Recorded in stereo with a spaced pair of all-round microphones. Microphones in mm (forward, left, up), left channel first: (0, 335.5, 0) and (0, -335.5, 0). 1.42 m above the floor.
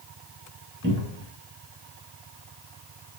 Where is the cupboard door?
15° right (ahead or behind), 1.6 m.